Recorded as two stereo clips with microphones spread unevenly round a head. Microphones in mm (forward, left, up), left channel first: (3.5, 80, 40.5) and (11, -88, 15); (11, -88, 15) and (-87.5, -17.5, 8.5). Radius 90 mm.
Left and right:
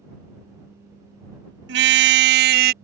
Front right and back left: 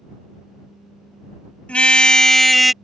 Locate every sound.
1.7 s a car horn: 115° right; by 2.7 s 125° right